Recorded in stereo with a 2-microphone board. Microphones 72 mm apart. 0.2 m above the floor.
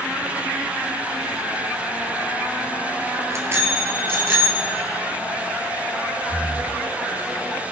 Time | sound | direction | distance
3.3 | a bicycle bell | 40° right (ahead or behind) | 2.5 m
6.3 | breathing | 55° right (ahead or behind) | 3 m